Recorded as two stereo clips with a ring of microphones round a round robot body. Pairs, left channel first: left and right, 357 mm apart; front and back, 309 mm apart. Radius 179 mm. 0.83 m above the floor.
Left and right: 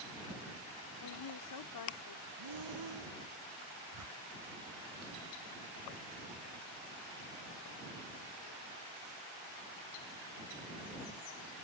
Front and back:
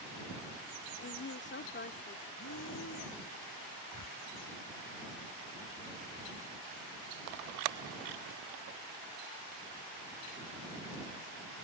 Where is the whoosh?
45° right.